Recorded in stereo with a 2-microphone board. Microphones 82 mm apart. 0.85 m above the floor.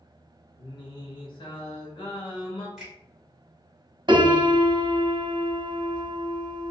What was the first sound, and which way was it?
Singing, 70° left (ahead or behind).